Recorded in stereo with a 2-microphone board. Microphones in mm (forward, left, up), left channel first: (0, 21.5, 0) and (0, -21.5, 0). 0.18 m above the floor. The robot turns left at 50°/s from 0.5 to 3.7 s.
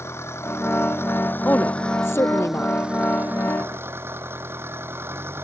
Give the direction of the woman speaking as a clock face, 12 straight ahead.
7 o'clock.